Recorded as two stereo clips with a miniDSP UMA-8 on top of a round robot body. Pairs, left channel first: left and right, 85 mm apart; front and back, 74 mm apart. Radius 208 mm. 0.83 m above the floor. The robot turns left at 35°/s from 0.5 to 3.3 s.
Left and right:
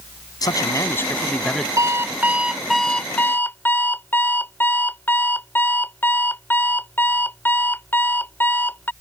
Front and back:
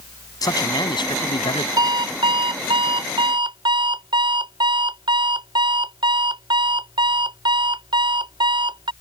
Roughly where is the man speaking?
Ahead left.